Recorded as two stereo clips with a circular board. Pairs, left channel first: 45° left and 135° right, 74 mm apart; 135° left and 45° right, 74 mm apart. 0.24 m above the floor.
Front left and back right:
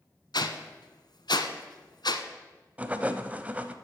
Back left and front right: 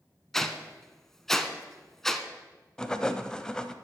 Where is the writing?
160° right, 0.7 m.